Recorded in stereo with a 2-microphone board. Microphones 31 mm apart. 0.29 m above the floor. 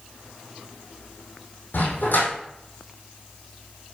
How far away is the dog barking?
About 5 m.